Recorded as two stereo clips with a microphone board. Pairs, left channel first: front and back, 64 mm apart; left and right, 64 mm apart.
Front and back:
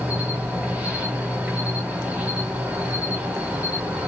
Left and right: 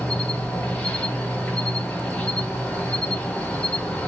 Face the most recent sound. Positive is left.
turn(degrees=140)